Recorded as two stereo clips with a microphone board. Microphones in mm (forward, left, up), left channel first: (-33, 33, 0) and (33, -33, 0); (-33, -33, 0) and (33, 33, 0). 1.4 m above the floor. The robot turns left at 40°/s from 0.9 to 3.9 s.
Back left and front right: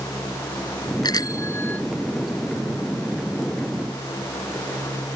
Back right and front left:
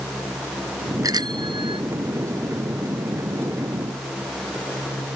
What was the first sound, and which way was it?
A bicycle bell, 95° left.